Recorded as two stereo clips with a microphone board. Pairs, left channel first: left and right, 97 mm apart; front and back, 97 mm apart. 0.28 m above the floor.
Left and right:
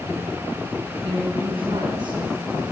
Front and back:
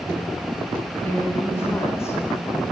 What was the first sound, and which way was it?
A woman speaking, 70° right.